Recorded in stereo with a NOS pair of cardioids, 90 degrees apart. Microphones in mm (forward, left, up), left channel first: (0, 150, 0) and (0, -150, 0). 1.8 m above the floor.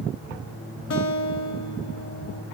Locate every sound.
0.9 s a guitar: 70° left, 0.9 m